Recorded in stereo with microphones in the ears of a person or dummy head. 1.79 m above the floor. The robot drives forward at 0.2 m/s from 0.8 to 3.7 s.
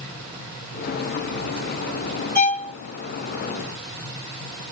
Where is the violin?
10° left (ahead or behind), 1.6 m.